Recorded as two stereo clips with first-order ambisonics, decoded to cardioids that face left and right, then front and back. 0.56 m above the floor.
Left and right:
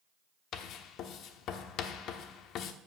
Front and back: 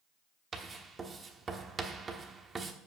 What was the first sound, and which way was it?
Writing, 115° left.